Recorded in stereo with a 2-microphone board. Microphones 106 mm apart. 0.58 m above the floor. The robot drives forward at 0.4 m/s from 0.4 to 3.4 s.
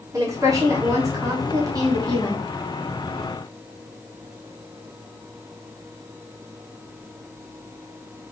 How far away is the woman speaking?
About 1.5 m.